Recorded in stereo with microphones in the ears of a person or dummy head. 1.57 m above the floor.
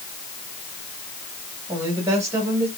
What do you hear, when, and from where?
1.7 s a woman speaking: 15° right (ahead or behind), 2 m